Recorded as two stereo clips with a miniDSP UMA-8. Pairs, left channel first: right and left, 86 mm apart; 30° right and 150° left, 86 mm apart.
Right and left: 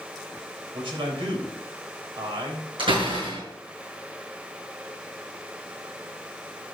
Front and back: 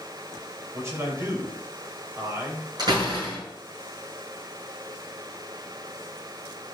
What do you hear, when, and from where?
0.7 s a man speaking: 95° left, 4 m
2.8 s a door slam: 110° left, 6 m